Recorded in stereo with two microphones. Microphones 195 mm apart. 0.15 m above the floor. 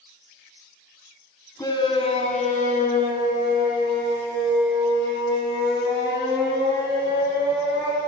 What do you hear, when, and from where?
1.6 s a shout: 20° left (ahead or behind), 1.1 m; by 8.0 s 70° left (ahead or behind), 4.5 m